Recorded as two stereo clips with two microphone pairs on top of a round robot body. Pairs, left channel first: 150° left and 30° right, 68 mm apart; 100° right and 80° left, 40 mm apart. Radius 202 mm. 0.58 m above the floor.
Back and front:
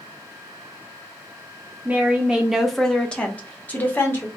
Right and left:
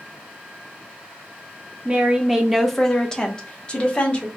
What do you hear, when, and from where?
1.9 s a woman speaking: 30° left, 0.9 m; by 4.3 s 155° right, 1.4 m